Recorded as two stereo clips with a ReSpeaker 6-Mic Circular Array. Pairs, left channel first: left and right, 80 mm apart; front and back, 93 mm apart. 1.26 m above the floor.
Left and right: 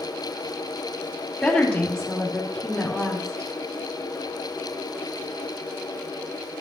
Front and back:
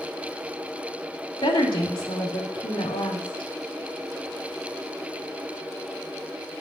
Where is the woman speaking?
5° left, 3 m.